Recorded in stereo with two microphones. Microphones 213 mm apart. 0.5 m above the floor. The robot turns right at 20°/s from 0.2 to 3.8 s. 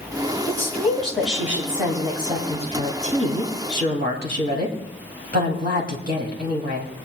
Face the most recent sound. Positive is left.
turn(degrees=-125)